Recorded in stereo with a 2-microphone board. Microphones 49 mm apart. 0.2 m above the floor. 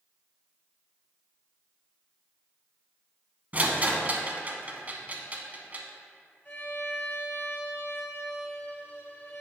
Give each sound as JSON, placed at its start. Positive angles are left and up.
{"t": 3.5, "sound": "a rattle", "side_deg": -35, "distance_m": 0.8}
{"t": 6.5, "sound": "a violin", "side_deg": 40, "distance_m": 2.5}